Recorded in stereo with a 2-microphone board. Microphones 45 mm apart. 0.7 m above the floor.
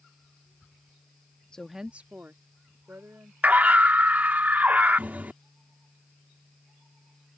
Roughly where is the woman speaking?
Centre.